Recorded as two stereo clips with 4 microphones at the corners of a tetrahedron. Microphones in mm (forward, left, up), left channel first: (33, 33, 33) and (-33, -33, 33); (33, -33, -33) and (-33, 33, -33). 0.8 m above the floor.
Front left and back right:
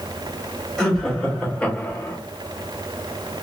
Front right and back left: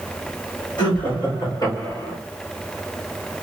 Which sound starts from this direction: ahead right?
Laughter, at 0.8 s.